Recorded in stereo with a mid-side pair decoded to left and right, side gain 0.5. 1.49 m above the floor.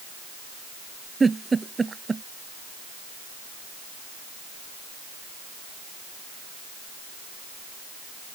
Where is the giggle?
25° right.